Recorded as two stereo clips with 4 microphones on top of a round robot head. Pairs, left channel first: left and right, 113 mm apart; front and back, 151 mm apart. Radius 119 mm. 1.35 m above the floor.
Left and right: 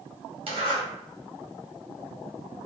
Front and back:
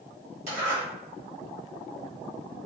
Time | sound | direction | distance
0.5 | a zipper | 130° right | 1.4 m